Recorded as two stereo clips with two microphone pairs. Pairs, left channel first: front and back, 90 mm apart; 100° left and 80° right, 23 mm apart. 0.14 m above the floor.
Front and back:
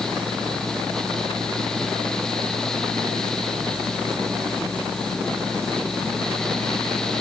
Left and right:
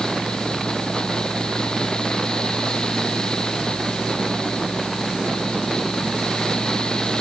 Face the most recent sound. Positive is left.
No sound to turn to.